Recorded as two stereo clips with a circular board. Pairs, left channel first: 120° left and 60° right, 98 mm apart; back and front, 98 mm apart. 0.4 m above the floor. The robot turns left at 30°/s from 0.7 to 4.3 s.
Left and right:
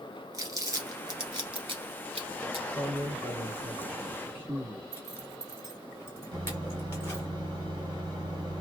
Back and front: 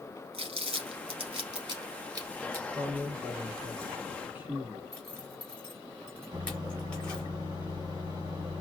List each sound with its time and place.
0.3 s crumpling: 5° right, 1.3 m; by 2.6 s 60° right, 1.3 m
2.7 s a man speaking: 10° left, 1.3 m; by 4.8 s 40° right, 1.3 m
4.9 s a zipper: 125° left, 1.4 m
6.3 s a microwave: 40° right, 1.5 m